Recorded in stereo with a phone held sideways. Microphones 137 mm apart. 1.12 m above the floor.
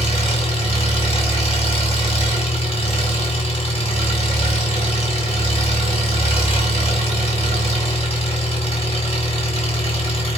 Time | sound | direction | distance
0.0 | an engine running | 45° left (ahead or behind) | 1.7 m